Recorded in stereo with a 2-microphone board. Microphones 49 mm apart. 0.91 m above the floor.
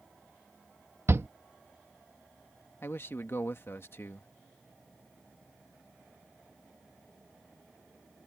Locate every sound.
1.1 s a shout: 60° right (ahead or behind)
2.8 s a man speaking: 50° left (ahead or behind)